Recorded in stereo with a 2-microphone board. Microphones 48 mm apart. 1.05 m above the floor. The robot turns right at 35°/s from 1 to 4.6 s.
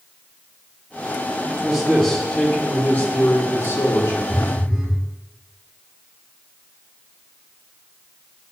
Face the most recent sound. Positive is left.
turn(degrees=-15)  # may be behind; listen again after turning